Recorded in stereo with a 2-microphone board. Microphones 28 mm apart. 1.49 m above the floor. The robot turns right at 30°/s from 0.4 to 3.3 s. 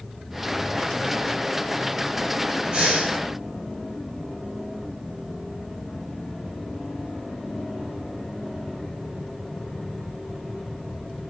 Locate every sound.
2.7 s breathing: 40° right (ahead or behind), 2.5 m; by 3.2 s 30° right (ahead or behind), 2.5 m